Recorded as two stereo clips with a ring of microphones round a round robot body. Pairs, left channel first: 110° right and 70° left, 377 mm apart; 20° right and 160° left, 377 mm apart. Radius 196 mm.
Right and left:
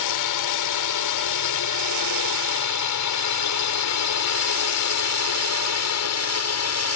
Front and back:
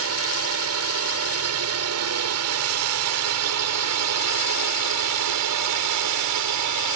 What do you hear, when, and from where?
0.0 s a drone: 150° right; by 7.0 s 160° right